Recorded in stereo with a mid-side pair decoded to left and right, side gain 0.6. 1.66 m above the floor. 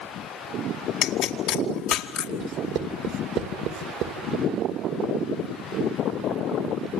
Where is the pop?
65° left, 2.5 m.